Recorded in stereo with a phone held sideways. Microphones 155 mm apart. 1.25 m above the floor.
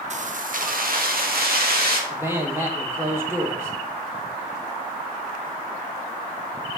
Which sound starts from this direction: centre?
A man speaking, at 2.1 s.